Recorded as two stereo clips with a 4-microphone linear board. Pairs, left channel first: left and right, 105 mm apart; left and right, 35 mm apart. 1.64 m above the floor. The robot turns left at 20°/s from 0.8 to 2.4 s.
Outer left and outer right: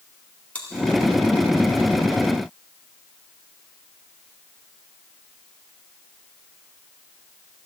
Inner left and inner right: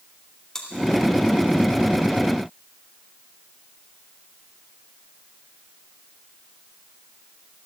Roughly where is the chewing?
Centre.